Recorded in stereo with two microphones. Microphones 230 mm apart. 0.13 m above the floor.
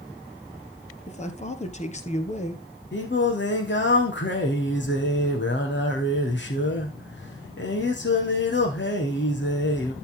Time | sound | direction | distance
1.1 | a man speaking | 30° left (ahead or behind) | 2.5 m
2.9 | singing | 55° left (ahead or behind) | 3.5 m